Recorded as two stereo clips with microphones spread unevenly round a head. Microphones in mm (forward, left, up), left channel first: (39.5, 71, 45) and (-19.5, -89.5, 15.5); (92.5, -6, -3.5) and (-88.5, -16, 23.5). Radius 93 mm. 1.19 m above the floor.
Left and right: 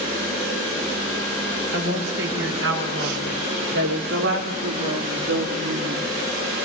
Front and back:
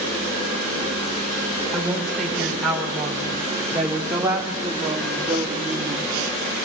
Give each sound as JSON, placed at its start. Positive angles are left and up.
{"t": 1.7, "sound": "a woman speaking", "azimuth_deg": -90, "distance_m": 5.5}